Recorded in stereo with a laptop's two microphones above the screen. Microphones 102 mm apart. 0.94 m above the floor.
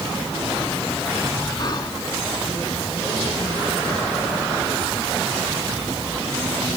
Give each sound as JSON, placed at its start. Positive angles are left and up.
{"t": 1.6, "sound": "whispering", "side_deg": 40}